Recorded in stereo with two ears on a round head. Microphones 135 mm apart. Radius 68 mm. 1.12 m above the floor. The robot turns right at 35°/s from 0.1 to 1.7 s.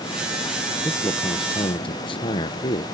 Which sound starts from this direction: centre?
A man speaking, at 0.8 s.